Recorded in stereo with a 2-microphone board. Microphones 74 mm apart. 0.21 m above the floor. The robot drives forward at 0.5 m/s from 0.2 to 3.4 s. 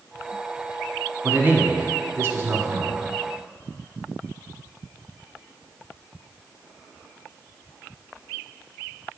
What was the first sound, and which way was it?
A man speaking, 30° right (ahead or behind).